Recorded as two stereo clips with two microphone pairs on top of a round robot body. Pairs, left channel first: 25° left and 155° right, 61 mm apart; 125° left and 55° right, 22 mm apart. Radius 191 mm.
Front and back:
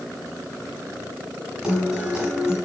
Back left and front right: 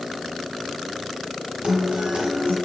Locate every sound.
1.6 s a guitar: 85° right, 1.2 m